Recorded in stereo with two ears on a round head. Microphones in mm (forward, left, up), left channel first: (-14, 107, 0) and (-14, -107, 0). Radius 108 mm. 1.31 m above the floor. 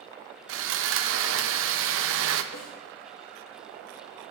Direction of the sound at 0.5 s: 55° right (ahead or behind).